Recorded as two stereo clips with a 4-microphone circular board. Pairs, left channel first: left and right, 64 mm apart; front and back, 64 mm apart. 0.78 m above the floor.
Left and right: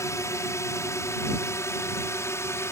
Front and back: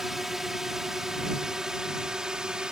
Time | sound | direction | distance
0.0 | a drone | 95° left | ?